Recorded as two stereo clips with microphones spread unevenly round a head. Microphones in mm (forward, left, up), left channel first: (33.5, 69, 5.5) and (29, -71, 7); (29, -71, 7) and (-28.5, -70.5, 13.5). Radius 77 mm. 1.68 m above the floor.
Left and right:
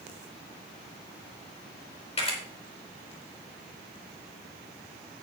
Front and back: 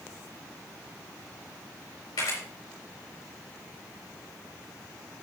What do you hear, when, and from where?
2.2 s a camera shutter: 40° left, 4.5 m